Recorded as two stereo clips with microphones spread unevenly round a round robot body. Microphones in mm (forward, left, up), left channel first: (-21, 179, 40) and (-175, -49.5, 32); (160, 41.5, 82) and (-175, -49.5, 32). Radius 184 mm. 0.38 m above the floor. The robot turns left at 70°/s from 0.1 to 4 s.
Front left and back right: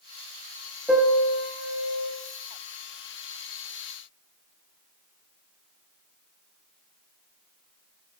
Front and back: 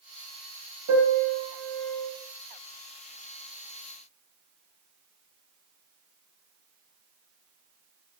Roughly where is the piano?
Behind left.